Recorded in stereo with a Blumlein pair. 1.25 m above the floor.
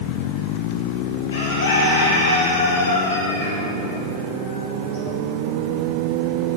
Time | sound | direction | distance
1.3 | a bird | 60° left | 2.5 m